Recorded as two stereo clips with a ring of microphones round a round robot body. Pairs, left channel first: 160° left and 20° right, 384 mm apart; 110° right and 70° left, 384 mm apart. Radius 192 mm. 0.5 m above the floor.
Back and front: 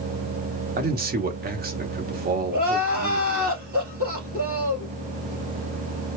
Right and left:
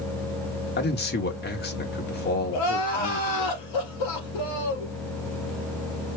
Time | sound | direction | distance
0.8 | a man speaking | 70° right | 1.1 m
2.5 | crying | 90° right | 3 m